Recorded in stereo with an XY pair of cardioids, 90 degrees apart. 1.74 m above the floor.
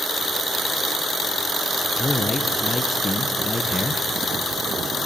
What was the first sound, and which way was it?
A man speaking, 25° left.